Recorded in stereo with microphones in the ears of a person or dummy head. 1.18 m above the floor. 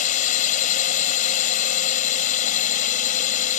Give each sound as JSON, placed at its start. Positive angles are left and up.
{"t": 0.0, "sound": "a drone", "side_deg": 40}